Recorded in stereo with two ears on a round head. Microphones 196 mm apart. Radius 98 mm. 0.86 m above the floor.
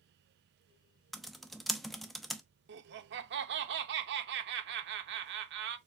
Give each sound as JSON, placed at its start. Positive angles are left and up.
{"t": 1.1, "sound": "typing on a keyboard", "side_deg": 0, "distance_m": 0.5}
{"t": 2.7, "sound": "laughter", "side_deg": -55, "distance_m": 0.7}